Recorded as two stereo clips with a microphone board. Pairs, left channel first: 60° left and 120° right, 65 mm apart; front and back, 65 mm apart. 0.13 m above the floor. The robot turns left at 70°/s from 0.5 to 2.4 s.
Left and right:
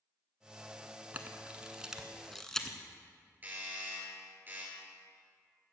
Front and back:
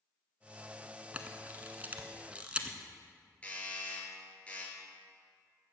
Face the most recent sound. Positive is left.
turn(degrees=-65)